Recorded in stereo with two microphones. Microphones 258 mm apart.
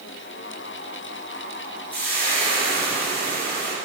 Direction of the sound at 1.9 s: 5° left (ahead or behind).